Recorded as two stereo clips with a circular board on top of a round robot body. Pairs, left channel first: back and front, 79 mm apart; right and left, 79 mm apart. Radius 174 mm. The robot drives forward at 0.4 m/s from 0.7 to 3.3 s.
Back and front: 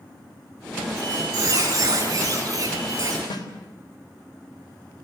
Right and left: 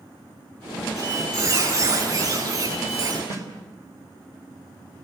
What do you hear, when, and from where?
1.0 s a squeak: 45° left, 7.5 m; by 3.2 s 50° left, 7 m
3.3 s a snare drum: 145° left, 3.5 m